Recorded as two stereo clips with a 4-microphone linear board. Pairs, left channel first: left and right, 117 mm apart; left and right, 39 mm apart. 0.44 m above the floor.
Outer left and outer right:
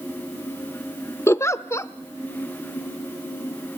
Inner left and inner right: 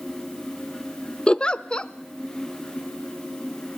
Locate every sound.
1.3 s a giggle: 25° left (ahead or behind), 0.5 m